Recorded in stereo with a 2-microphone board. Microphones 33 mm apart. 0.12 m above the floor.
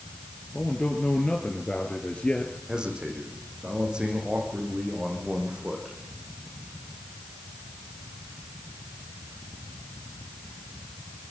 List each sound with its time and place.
0.5 s a man speaking: 30° left (ahead or behind), 2 m
2.7 s a man speaking: 25° right (ahead or behind), 7 m